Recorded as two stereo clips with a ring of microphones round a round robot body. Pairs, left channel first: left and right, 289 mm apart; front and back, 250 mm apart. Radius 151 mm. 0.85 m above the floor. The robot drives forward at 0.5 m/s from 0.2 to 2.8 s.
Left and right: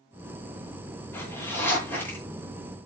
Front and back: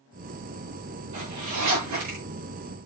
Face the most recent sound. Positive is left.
turn(degrees=175)